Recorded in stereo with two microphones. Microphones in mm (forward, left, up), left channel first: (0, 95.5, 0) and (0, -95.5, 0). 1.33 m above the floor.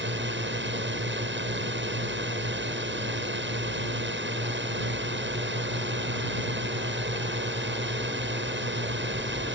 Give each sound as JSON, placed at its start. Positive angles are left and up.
{"t": 0.0, "sound": "a drone", "side_deg": -75}